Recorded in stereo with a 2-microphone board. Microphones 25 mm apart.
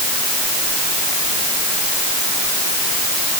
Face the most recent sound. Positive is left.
No sound to turn to.